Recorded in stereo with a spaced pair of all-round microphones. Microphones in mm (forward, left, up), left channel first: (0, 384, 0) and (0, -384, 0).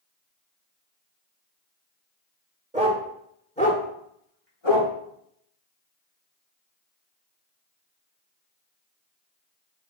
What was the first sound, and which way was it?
A dog barking, 10° right (ahead or behind).